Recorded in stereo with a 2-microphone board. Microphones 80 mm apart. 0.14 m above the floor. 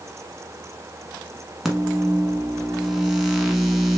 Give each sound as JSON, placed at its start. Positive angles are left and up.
{"t": 1.6, "sound": "a microwave", "side_deg": -5, "distance_m": 0.9}